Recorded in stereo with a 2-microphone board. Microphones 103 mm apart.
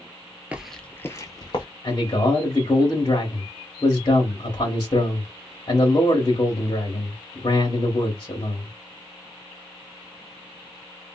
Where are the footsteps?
15° right (ahead or behind), 0.5 m; by 1.6 s 45° left (ahead or behind), 0.9 m.